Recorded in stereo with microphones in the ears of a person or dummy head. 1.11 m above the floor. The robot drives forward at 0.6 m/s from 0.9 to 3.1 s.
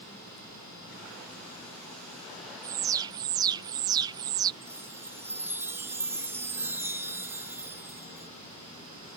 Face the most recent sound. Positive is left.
turn(degrees=-10)  # may be behind; listen again after turning